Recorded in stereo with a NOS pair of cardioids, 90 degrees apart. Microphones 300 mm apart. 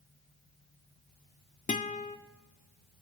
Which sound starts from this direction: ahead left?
A guitar, at 1.7 s.